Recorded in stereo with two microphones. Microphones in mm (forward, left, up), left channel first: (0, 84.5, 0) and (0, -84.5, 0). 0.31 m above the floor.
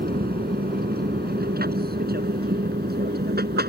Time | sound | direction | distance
0.0 | an aircraft | 65° right (ahead or behind) | ?